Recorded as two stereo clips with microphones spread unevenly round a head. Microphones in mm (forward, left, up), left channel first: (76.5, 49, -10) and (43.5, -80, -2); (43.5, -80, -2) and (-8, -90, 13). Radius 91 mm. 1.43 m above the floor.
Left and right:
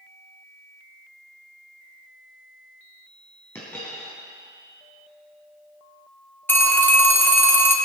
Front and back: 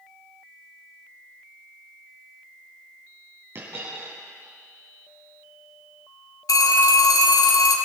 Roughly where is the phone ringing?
Ahead.